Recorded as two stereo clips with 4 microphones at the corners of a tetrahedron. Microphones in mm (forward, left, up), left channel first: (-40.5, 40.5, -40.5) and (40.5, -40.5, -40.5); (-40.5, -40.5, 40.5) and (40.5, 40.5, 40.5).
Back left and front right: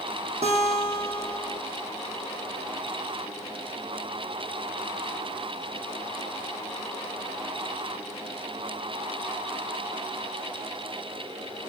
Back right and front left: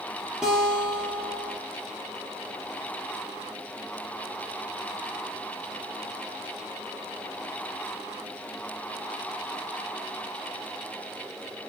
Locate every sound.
0.4 s a guitar: 40° right, 0.8 m